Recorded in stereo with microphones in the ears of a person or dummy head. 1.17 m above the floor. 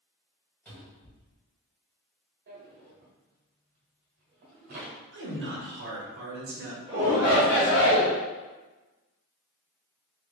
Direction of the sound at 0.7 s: 5° left (ahead or behind).